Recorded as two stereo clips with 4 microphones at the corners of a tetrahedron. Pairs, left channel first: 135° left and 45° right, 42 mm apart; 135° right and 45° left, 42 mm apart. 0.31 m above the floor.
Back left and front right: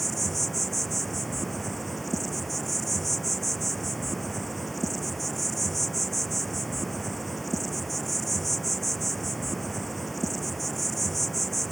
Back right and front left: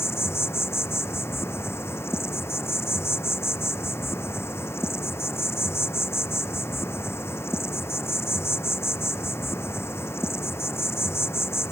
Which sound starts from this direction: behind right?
An insect, at 0.0 s.